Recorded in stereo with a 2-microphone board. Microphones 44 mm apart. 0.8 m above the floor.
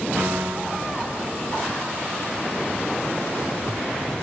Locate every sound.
0.2 s a piano: 65° right (ahead or behind), 4.5 m